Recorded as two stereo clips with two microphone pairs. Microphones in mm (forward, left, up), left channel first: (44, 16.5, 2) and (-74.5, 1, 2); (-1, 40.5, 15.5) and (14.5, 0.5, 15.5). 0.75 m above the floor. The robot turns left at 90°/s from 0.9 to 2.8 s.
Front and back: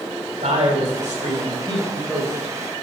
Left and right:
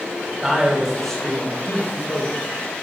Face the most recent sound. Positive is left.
turn(degrees=40)